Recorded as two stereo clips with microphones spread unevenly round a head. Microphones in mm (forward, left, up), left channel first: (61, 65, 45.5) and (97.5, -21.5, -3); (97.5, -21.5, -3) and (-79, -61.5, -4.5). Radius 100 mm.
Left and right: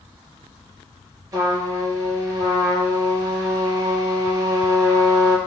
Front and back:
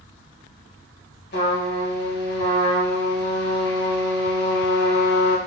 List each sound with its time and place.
1.3 s a trumpet: 5° right, 2.5 m